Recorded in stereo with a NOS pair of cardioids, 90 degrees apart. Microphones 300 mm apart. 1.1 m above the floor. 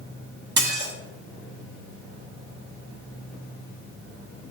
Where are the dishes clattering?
35° right, 1.2 m.